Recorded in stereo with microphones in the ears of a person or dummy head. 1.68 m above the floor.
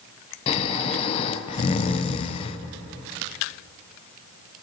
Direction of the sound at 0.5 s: 30° left (ahead or behind).